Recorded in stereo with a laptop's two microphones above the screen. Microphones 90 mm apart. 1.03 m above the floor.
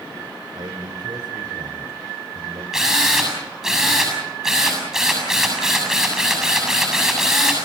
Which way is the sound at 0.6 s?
55° right (ahead or behind).